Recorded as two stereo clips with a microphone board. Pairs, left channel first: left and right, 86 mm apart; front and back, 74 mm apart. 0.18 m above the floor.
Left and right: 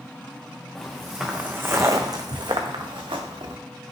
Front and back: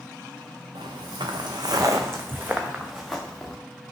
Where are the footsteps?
175° left, 0.9 m; by 3.6 s 85° right, 1.2 m.